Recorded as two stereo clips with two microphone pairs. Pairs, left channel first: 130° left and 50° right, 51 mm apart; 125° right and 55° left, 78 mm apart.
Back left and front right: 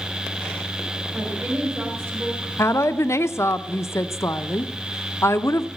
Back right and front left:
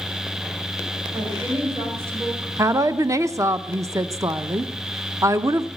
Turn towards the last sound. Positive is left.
turn(degrees=105)